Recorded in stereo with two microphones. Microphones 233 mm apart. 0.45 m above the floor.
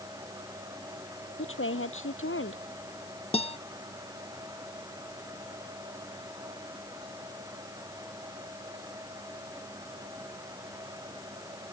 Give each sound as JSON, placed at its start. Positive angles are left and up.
{"t": 1.4, "sound": "a woman speaking", "side_deg": 65}
{"t": 3.3, "sound": "a guitar", "side_deg": 25}